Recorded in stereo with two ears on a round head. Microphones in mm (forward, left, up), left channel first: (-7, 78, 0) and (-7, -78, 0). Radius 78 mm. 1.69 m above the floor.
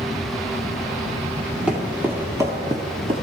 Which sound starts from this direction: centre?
Footsteps, at 1.7 s.